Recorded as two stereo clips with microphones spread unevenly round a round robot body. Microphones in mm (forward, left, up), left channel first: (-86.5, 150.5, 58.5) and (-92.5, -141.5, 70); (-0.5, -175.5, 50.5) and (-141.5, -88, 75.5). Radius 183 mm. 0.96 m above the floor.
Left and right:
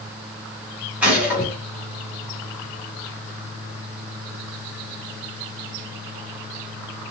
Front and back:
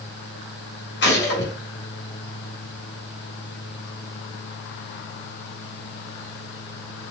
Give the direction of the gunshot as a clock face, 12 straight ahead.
12 o'clock.